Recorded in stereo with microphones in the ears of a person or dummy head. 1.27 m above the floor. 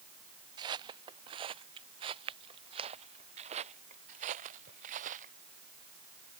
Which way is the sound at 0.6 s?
35° right (ahead or behind).